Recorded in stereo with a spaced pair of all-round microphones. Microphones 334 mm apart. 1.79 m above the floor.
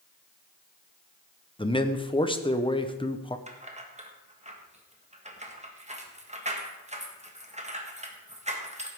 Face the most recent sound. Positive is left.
turn(degrees=-20)  # may be behind; listen again after turning